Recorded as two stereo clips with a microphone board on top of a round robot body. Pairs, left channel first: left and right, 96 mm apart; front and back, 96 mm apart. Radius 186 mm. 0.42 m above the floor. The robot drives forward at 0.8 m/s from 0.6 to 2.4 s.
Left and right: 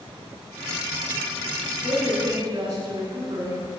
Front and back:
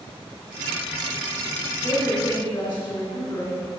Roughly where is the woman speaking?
Ahead right.